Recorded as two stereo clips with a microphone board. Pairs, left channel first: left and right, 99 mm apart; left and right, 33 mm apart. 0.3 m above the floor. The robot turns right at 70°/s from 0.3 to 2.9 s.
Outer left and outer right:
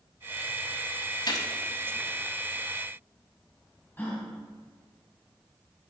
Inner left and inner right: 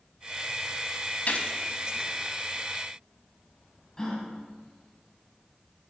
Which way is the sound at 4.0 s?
20° left (ahead or behind).